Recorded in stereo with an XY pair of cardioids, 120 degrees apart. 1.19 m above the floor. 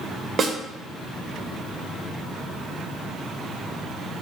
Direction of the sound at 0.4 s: 40° right.